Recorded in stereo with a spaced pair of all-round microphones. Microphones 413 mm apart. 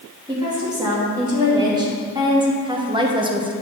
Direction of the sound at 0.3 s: 10° right (ahead or behind).